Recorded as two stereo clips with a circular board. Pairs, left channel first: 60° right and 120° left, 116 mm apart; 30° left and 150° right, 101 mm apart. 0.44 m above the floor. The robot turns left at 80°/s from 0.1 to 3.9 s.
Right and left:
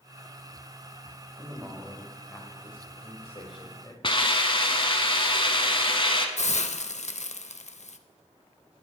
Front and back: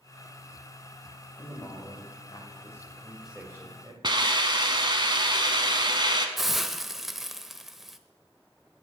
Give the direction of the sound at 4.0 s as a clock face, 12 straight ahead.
4 o'clock.